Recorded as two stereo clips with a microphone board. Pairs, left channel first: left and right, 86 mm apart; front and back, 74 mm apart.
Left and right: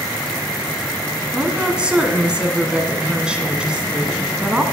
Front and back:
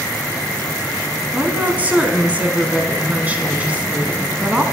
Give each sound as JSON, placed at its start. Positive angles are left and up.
{"t": 1.3, "sound": "a woman speaking", "azimuth_deg": -150, "distance_m": 1.3}